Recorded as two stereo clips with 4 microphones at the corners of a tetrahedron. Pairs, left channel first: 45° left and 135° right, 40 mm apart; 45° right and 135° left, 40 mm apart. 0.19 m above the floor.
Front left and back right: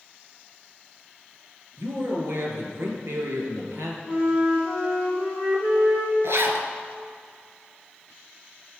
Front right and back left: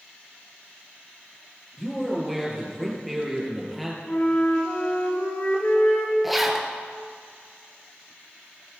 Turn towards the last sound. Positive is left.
turn(degrees=-135)